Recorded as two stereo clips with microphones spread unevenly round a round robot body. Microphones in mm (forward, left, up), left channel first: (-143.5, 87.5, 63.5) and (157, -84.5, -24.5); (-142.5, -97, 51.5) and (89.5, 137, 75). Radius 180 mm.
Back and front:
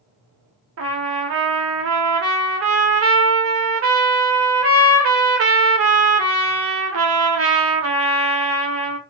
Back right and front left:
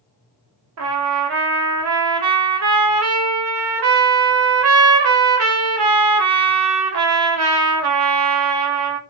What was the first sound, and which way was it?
A trumpet, straight ahead.